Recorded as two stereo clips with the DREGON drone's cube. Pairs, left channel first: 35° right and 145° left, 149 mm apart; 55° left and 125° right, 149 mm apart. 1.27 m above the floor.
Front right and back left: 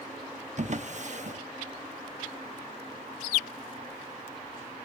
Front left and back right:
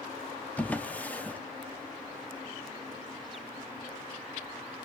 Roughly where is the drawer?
Behind left.